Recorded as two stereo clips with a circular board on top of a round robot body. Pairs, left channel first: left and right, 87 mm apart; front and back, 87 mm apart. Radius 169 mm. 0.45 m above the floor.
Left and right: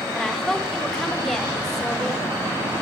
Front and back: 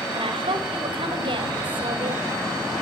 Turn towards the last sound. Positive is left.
turn(degrees=175)